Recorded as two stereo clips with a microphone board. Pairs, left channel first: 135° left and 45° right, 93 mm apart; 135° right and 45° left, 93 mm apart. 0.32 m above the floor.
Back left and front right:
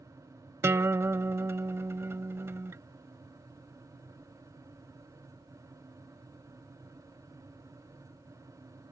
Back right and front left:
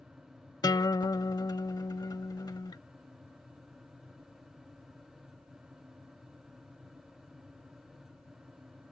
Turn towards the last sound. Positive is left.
turn(degrees=-100)